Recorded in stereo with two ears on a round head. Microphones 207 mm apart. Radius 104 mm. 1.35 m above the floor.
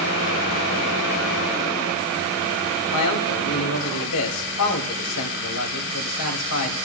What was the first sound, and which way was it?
A man speaking, 85° left.